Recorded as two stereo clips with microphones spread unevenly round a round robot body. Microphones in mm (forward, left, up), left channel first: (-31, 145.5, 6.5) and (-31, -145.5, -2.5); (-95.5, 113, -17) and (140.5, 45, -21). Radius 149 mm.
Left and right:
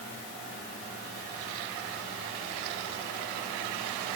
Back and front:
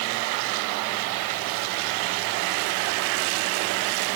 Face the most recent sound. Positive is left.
No sound to turn to.